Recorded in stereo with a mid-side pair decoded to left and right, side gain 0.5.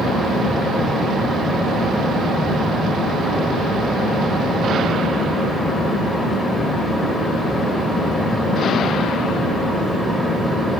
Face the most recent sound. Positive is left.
turn(degrees=10)